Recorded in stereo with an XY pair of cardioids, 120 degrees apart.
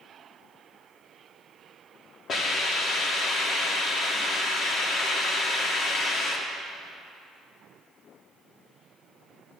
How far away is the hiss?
About 2.5 m.